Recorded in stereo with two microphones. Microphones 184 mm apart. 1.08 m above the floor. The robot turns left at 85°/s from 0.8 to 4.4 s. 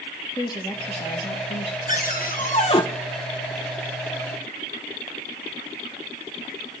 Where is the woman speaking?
155° left, 1.8 m; by 1.8 s 75° left, 1.8 m.